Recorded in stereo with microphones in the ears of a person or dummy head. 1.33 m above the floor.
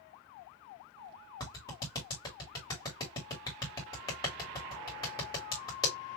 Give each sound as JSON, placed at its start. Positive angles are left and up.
{"t": 1.4, "sound": "a clap", "side_deg": 25, "distance_m": 2.0}